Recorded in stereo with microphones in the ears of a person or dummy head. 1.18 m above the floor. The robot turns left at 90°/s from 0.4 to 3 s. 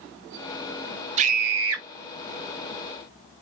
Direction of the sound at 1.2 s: 40° right.